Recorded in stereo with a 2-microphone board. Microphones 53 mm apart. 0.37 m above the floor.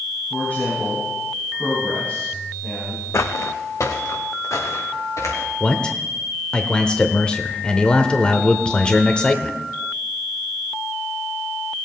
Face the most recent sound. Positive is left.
turn(degrees=20)  # may be behind; listen again after turning